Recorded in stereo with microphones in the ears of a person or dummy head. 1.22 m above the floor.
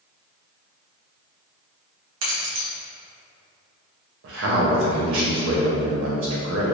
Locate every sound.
2.2 s keys jangling: 80° right, 1.0 m
4.2 s a man speaking: 70° right (ahead or behind), 0.8 m